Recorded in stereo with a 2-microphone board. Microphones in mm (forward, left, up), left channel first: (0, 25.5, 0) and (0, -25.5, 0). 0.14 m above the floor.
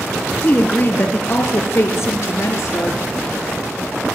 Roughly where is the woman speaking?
Left.